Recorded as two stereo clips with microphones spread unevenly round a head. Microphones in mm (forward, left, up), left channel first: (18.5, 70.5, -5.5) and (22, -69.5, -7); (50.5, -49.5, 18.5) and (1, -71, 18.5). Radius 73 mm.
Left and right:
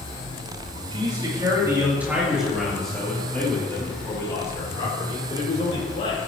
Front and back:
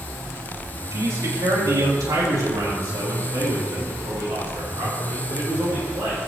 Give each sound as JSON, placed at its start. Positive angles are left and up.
{"t": 0.9, "sound": "a man speaking", "azimuth_deg": -150, "distance_m": 3.5}